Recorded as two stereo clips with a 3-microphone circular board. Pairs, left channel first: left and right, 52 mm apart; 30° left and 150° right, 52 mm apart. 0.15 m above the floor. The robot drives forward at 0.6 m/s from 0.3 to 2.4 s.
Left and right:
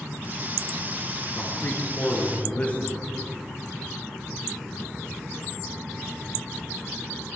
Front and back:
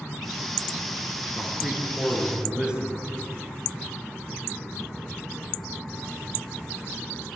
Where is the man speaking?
130° left, 2.5 m; by 3.0 s 140° left, 3 m.